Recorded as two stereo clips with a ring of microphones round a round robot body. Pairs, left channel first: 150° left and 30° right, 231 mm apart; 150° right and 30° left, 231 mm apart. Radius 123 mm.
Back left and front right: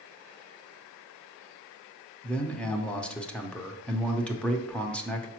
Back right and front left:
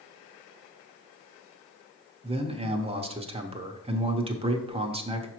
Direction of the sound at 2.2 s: 70° left.